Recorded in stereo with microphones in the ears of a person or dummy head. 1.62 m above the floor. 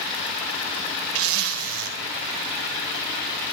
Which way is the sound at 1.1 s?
80° right.